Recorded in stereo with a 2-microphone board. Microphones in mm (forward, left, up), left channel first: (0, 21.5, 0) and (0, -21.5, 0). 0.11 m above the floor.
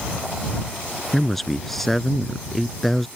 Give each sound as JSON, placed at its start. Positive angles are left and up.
{"t": 1.1, "sound": "a man speaking", "side_deg": 5}